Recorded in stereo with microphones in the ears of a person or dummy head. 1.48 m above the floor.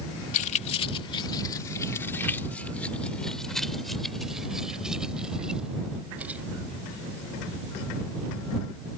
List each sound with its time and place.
0.3 s keys jangling: 40° left (ahead or behind); by 6.4 s 5° right (ahead or behind)